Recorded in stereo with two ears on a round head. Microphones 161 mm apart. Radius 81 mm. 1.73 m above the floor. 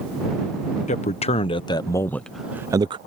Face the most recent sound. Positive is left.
turn(degrees=-30)  # may be behind; listen again after turning